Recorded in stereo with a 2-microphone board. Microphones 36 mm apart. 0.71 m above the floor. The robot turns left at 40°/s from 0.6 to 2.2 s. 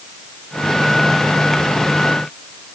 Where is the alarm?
No alarm in this recording.